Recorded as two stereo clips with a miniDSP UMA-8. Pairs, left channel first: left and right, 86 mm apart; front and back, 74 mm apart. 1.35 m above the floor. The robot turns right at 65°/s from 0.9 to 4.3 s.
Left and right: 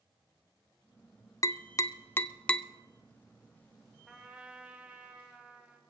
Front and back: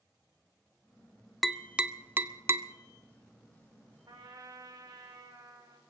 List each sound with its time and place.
1.4 s tapping: 90° left, 0.5 m; by 2.7 s 170° left, 0.5 m
4.1 s a trumpet: straight behind, 2 m; by 5.8 s 165° right, 2 m